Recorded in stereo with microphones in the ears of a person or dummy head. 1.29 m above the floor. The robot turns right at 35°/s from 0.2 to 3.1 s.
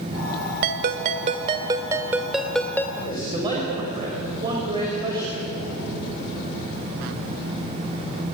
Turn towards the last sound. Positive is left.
turn(degrees=-25)  # may be behind; listen again after turning